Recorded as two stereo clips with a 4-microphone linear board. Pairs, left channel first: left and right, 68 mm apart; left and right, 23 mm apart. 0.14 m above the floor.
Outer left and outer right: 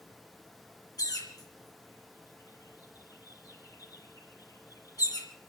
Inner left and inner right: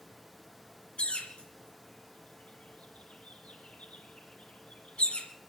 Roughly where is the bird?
Left.